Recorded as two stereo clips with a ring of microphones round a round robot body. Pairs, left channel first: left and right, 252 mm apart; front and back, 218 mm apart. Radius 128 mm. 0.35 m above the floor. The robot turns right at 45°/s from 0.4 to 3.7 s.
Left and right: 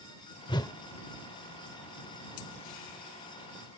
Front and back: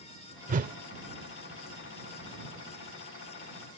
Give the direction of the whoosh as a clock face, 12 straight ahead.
7 o'clock.